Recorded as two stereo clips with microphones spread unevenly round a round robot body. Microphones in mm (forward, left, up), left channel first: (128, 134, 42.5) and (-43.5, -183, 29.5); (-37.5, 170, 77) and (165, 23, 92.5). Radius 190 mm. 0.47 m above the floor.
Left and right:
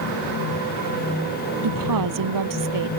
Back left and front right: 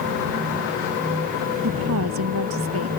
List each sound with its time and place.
1.6 s a woman speaking: 85° right